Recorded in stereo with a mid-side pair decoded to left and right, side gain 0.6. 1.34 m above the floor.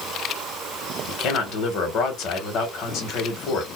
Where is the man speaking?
60° left, 1.4 m.